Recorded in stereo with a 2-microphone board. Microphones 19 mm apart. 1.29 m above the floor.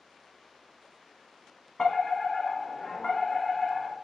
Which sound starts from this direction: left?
A fire alarm, at 1.8 s.